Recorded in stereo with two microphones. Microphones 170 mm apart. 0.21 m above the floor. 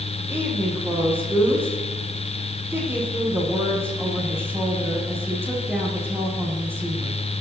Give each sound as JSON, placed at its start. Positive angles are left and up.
{"t": 0.3, "sound": "a woman speaking", "side_deg": -15, "distance_m": 7.0}